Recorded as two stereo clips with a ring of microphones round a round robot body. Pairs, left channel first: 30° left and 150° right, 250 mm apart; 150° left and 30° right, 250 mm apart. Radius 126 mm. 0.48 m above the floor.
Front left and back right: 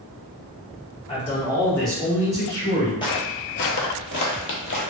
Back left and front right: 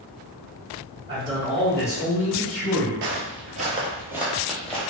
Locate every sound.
1.1 s a man speaking: 10° left, 1.2 m; by 2.9 s 155° left, 1.5 m
3.0 s footsteps: 35° right, 0.6 m; by 4.8 s 65° left, 0.9 m